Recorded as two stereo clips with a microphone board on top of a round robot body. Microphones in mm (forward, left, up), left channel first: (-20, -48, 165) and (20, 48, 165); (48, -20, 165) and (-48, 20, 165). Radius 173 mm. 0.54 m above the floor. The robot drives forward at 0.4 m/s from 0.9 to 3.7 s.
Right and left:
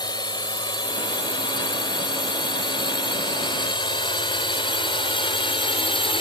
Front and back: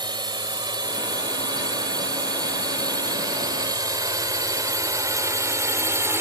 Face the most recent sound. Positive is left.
turn(degrees=-140)